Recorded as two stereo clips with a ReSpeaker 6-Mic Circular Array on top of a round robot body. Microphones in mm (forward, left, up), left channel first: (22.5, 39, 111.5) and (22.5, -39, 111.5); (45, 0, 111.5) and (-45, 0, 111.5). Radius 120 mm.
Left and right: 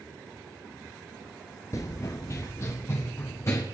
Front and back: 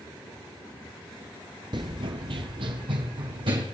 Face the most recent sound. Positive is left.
turn(degrees=150)